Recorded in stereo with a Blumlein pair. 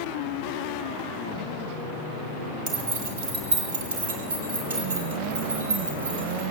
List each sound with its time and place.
2.7 s keys jangling: 45° right, 3 m; by 6.4 s 75° right, 5.5 m